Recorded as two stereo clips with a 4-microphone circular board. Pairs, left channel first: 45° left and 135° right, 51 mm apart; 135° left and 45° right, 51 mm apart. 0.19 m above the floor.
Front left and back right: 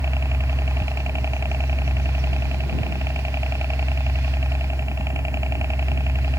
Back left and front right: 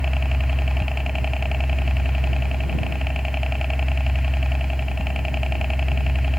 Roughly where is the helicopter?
Behind right.